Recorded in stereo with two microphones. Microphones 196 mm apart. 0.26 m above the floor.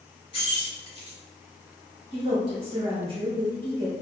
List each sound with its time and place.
0.3 s keys jangling: 25° left (ahead or behind), 0.9 m
2.1 s a woman speaking: 30° right (ahead or behind), 1.2 m